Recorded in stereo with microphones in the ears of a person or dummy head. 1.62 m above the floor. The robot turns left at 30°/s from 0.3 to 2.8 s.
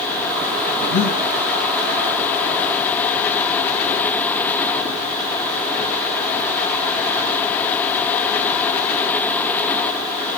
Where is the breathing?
65° left (ahead or behind), 7.5 m; by 1.2 s 75° left (ahead or behind), 7.5 m.